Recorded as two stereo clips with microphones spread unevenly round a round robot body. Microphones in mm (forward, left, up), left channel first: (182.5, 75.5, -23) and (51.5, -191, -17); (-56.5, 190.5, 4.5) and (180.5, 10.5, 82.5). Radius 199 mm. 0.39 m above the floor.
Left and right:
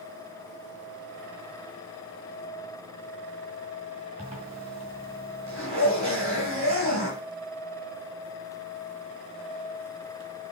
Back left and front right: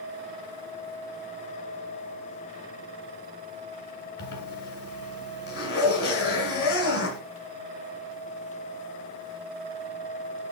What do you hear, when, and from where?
4.2 s a zipper: 170° left, 1.5 m